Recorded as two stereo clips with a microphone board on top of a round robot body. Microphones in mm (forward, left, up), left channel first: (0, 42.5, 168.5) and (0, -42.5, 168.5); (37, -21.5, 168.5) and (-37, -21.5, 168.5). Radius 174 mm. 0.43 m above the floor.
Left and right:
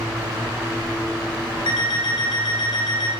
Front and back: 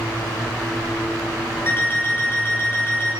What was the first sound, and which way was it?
An alarm clock, 65° left.